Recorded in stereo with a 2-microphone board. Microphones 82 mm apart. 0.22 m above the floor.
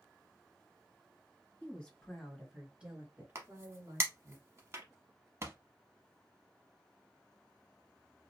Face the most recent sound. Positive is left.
turn(degrees=-35)  # may be behind; listen again after turning